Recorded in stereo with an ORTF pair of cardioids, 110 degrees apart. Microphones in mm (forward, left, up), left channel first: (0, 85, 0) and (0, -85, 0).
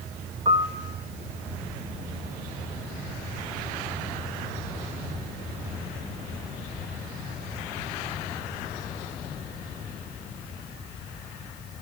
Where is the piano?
35° right, 0.9 m.